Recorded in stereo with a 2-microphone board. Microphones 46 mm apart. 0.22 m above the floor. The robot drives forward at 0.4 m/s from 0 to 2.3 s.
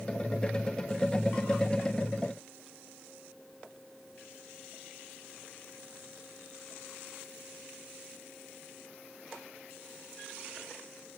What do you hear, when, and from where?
Only background noise.